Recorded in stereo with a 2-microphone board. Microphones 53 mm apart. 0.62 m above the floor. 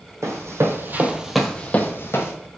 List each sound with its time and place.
0.2 s running footsteps: 65° right (ahead or behind), 1.5 m; by 2.3 s 50° left (ahead or behind), 1.5 m